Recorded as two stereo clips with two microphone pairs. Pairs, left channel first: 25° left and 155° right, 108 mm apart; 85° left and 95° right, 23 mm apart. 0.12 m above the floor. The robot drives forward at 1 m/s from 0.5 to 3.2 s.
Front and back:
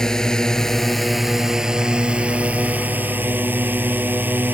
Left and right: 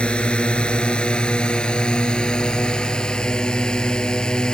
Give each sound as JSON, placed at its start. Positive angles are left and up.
{"t": 0.0, "sound": "a drone", "azimuth_deg": 110}